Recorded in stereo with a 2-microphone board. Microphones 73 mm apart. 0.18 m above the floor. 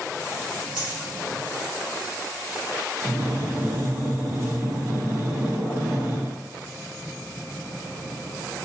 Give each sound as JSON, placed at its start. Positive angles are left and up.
{"t": 0.8, "sound": "a dropped coin", "side_deg": -10, "distance_m": 1.1}
{"t": 3.0, "sound": "breathing", "side_deg": -35, "distance_m": 0.7}